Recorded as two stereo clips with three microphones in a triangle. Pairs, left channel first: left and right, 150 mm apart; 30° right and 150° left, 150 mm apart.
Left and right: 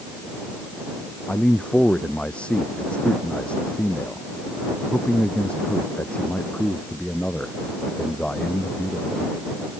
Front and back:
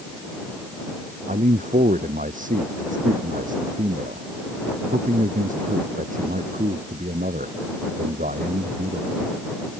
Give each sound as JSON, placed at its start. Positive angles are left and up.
{"t": 1.3, "sound": "a man speaking", "azimuth_deg": 175}